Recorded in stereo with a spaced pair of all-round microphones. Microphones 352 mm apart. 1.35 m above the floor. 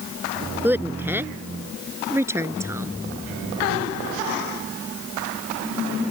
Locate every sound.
0.6 s a woman speaking: 5° right (ahead or behind); by 2.9 s 10° right (ahead or behind)